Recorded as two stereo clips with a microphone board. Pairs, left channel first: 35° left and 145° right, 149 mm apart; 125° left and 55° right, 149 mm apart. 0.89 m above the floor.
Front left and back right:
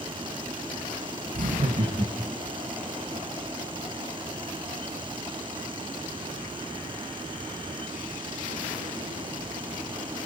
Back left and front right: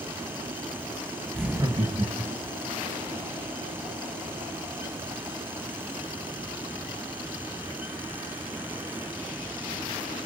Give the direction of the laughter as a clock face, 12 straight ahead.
5 o'clock.